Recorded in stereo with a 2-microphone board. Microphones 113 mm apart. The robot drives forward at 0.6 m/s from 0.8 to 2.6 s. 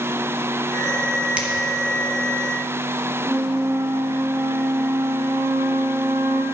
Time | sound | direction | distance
1.4 | a finger snap | 10° right (ahead or behind) | 1.5 m
3.2 | a flute | 15° right (ahead or behind) | 1.1 m